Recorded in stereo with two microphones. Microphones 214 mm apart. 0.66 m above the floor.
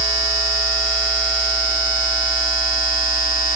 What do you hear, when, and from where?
Only background noise.